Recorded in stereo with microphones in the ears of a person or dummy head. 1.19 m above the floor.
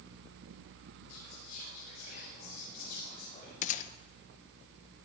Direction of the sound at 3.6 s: 45° left (ahead or behind).